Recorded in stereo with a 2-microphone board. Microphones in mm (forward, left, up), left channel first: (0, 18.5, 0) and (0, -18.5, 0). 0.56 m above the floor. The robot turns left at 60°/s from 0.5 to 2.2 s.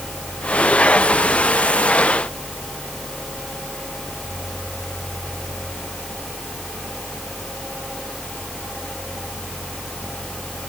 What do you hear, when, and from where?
Only background noise.